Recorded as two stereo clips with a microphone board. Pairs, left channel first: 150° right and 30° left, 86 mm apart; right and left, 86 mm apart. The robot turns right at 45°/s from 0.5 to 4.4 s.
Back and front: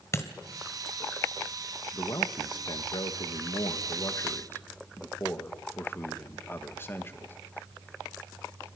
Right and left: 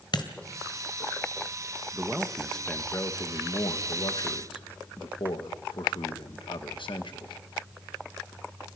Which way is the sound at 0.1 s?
95° right.